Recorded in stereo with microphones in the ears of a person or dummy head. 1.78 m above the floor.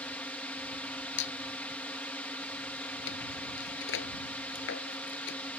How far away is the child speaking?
I don't hear a child speaking.